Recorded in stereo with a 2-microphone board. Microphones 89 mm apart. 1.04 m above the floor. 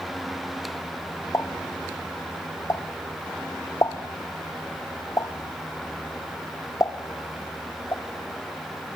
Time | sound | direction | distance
1.3 | a pop | 35° left (ahead or behind) | 1.1 m